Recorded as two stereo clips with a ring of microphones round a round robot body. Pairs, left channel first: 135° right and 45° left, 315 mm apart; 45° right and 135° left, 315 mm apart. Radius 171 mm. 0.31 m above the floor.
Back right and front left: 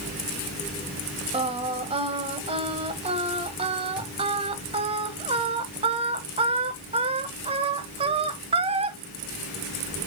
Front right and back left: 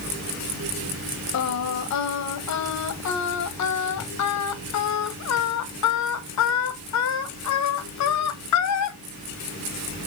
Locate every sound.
1.3 s singing: 25° right, 1.2 m